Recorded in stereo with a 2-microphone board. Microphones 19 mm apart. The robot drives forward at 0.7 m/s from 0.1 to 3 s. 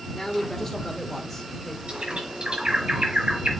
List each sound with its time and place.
0.1 s a man speaking: 20° left (ahead or behind), 1.2 m; by 1.8 s 15° left (ahead or behind), 1.6 m
1.9 s a bird: 55° right (ahead or behind), 3.5 m; by 3.5 s 45° right (ahead or behind), 4 m